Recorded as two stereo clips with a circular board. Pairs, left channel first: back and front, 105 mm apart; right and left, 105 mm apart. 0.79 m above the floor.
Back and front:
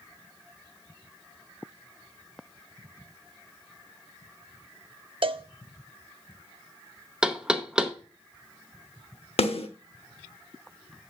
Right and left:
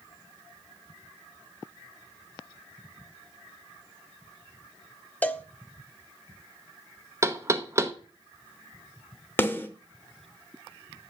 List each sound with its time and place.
5.2 s a cowbell: 20° right, 0.5 m
7.2 s knocking: 75° left, 0.8 m
9.4 s a snare drum: 160° right, 0.9 m